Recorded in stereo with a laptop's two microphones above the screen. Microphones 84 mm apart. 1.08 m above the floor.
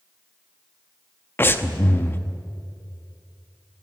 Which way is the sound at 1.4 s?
25° left (ahead or behind).